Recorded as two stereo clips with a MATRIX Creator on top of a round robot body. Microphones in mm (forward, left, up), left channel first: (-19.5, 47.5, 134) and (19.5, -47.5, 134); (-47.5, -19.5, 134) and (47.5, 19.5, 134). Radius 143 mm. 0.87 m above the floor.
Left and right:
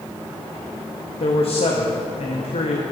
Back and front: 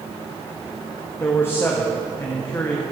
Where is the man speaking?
135° left, 1.1 m.